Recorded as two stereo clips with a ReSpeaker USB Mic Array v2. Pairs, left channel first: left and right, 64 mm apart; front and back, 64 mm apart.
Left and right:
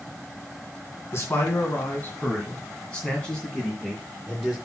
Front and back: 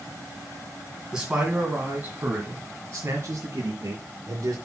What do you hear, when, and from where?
1.1 s a man speaking: 105° left, 2 m; by 4.5 s straight behind, 3 m